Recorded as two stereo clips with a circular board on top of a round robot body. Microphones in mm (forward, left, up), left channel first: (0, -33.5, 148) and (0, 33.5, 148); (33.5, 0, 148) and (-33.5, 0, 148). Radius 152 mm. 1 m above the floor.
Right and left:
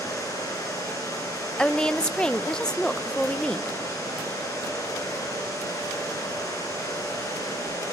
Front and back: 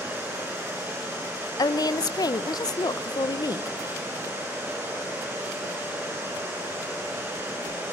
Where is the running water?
125° right, 10 m.